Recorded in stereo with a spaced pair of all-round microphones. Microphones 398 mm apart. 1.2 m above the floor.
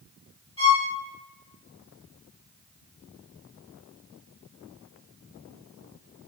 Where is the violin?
15° left (ahead or behind), 1.5 m.